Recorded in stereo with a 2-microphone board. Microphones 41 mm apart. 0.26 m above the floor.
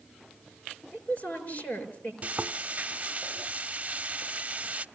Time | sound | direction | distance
0.9 | a woman speaking | 40° left (ahead or behind) | 5 m
2.2 | frying | 35° right (ahead or behind) | 0.6 m